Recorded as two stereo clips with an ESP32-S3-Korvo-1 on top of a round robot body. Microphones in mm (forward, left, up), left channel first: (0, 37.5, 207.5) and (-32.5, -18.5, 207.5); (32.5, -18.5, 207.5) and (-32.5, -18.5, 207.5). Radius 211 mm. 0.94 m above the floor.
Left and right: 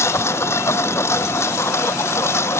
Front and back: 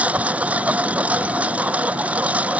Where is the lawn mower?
110° left.